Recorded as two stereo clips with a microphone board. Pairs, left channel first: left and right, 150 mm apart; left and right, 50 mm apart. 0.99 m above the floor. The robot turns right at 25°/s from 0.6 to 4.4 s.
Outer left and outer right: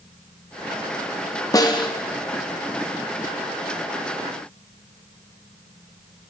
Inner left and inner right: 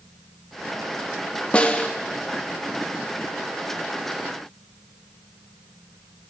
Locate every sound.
1.5 s a snare drum: 25° left (ahead or behind), 0.5 m; by 1.9 s 30° left (ahead or behind), 0.5 m